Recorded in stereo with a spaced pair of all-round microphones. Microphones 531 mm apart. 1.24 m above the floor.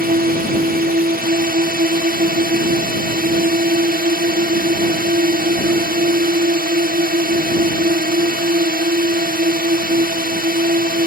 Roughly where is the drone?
Centre.